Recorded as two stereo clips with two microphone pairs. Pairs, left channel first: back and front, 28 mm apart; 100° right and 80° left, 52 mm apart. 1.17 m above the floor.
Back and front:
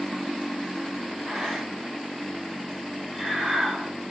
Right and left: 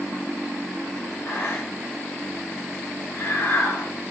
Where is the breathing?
80° right, 2.5 m.